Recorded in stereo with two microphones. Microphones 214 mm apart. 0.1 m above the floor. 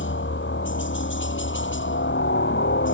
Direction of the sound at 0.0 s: 60° left (ahead or behind).